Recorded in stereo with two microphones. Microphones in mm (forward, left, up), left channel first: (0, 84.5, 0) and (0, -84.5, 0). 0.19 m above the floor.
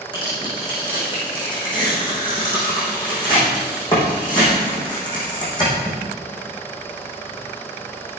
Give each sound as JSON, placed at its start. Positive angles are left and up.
{"t": 0.1, "sound": "tearing paper", "side_deg": 25, "distance_m": 6.5}